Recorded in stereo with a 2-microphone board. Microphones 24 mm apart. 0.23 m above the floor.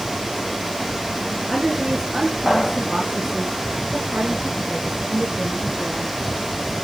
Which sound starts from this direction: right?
A woman speaking, at 1.5 s.